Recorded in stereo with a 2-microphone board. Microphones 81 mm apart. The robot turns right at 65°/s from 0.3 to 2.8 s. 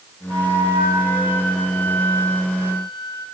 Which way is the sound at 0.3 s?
95° right.